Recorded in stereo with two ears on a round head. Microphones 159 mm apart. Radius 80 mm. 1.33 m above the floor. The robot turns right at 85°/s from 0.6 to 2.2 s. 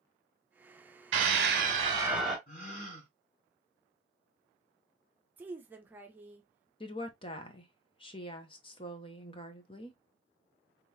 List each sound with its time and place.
1.1 s a scream: 95° right, 2 m; by 2.4 s straight ahead, 2 m
2.5 s a gasp: 50° left (ahead or behind), 3 m
5.4 s a woman speaking: 10° right (ahead or behind), 0.8 m
6.8 s a woman speaking: 30° left (ahead or behind), 0.8 m